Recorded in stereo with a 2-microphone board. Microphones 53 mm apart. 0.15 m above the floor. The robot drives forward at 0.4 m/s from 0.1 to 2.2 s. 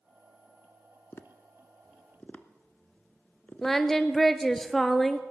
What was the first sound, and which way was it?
Tapping, 45° left (ahead or behind).